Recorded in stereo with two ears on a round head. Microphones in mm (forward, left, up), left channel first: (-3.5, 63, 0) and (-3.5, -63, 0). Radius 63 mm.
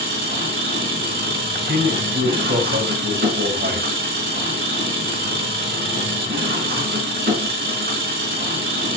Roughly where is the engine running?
Right.